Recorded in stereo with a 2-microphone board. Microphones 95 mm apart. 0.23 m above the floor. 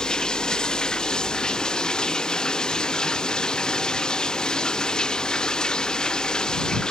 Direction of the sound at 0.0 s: 10° left (ahead or behind).